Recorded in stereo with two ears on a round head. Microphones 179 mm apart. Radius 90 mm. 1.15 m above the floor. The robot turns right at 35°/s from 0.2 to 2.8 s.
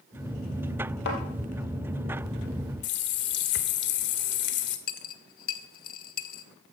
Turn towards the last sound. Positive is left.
turn(degrees=45)  # may be behind; listen again after turning